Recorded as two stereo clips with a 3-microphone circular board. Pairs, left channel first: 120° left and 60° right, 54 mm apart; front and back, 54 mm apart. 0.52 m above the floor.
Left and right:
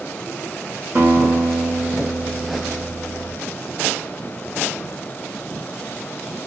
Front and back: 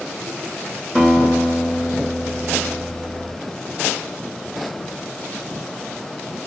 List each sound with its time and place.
0.9 s a guitar: 105° right, 2 m